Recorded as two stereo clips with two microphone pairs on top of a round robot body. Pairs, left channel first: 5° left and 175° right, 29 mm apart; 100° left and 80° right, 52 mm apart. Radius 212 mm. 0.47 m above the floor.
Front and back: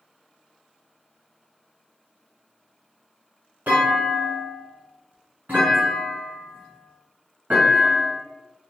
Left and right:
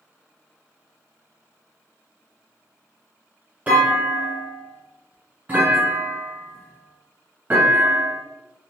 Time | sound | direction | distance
3.7 | a clunk | 145° right | 1.4 m